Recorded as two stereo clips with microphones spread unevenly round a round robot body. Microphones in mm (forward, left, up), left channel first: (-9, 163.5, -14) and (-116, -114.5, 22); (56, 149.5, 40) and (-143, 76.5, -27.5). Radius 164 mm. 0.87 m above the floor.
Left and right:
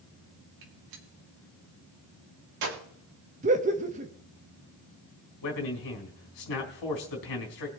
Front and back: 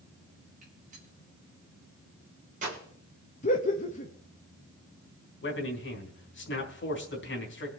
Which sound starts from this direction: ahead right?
Laughter, at 3.4 s.